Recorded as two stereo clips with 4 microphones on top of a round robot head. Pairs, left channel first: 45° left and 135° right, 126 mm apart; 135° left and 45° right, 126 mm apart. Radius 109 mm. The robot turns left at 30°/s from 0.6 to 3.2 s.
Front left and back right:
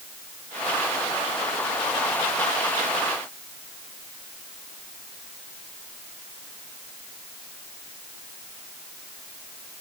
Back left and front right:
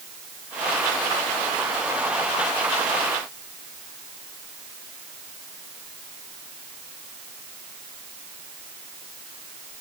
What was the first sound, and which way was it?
Only background noise.